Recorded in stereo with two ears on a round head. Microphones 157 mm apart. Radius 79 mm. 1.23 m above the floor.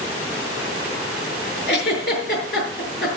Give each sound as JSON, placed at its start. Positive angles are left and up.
{"t": 1.7, "sound": "a giggle", "side_deg": 65, "distance_m": 6.5}